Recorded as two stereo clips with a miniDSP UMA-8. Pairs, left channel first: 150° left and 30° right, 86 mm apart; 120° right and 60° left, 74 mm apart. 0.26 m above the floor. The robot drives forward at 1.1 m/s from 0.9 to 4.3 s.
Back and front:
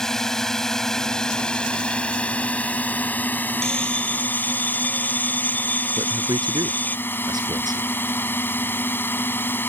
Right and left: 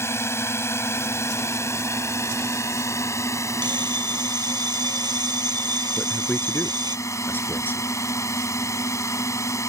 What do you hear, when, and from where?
0.0 s a drone: 130° right; by 9.7 s 150° right
3.6 s a bell: 70° left; by 7.0 s 80° left
6.0 s a man speaking: 60° right